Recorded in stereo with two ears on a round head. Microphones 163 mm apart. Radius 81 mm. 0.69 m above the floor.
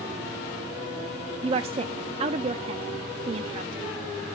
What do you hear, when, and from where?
1.4 s a woman speaking: 30° right (ahead or behind), 0.5 m